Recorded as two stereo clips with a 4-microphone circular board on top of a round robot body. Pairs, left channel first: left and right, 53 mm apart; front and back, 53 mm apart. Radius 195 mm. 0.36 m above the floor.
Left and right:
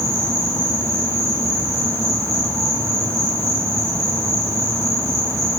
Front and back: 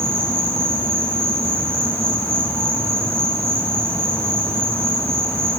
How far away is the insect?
About 8 m.